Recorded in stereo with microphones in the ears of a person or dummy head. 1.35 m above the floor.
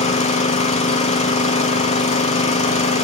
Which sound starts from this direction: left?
An engine running, at 0.0 s.